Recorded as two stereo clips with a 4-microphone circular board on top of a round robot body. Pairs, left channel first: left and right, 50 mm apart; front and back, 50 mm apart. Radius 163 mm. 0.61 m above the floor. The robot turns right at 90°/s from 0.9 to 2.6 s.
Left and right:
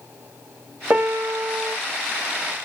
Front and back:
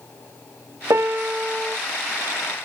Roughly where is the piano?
Behind right.